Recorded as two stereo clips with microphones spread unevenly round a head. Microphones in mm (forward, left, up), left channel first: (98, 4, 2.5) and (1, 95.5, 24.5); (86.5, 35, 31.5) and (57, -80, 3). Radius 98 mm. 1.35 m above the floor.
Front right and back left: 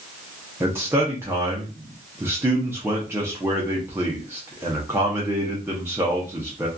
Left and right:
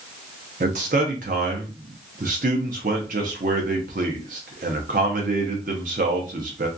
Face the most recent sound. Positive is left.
turn(degrees=-145)